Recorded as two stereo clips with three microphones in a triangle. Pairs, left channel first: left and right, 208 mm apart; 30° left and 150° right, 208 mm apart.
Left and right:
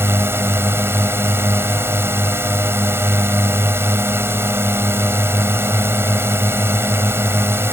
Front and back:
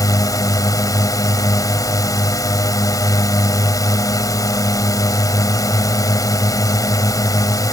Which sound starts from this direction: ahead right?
A drone, at 0.0 s.